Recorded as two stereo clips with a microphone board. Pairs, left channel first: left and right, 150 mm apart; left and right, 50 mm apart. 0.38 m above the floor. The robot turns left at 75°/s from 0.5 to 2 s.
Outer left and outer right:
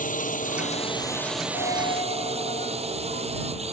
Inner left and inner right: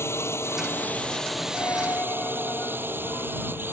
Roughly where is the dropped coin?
Left.